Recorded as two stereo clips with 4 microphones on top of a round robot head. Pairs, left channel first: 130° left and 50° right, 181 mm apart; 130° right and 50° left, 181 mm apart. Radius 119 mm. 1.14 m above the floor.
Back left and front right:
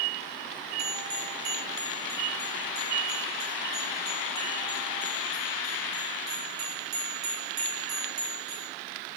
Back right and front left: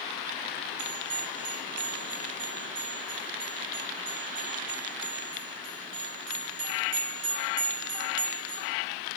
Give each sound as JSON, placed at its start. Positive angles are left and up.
{"t": 0.8, "sound": "a bell", "azimuth_deg": 20, "distance_m": 3.0}